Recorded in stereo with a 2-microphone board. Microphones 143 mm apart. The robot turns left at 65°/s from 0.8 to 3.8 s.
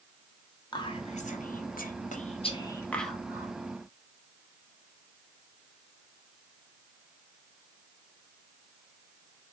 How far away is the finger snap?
I don't hear a finger snap.